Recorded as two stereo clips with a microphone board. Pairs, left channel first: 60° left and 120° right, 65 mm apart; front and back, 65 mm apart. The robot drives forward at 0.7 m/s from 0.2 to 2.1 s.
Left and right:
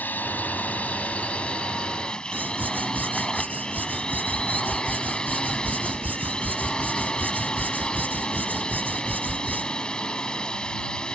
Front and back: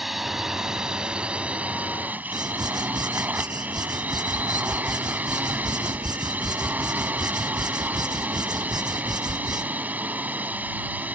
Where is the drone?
95° left; by 11.1 s 130° left.